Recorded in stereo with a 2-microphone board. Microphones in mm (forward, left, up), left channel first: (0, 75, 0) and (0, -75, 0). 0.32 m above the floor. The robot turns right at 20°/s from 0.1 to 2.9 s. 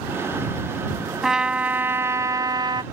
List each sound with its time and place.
1.2 s a trumpet: 175° right; by 2.8 s 145° right